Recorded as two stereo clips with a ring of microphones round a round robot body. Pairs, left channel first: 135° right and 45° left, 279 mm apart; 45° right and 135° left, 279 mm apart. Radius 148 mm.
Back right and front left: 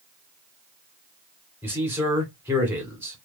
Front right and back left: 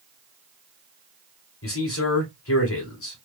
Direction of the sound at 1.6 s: 35° right.